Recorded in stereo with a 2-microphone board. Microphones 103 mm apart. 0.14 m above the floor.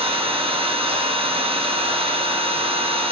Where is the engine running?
70° right (ahead or behind), 1.4 m.